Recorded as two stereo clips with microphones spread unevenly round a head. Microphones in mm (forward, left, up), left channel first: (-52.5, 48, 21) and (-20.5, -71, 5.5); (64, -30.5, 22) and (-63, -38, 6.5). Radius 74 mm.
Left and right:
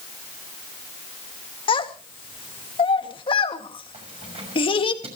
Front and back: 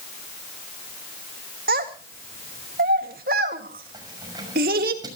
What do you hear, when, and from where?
1.7 s a child speaking: 150° left, 2 m
3.9 s keys jangling: 115° right, 6 m